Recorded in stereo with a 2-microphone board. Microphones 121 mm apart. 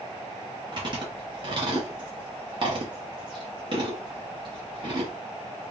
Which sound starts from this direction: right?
Chewing, at 0.7 s.